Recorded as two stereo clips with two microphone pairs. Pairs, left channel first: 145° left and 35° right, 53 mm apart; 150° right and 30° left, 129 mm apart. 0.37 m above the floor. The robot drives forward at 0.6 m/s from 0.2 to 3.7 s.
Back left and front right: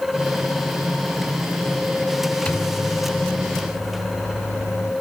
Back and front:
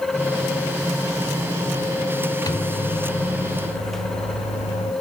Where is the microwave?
175° right, 0.6 m; by 4.9 s straight behind, 1.2 m.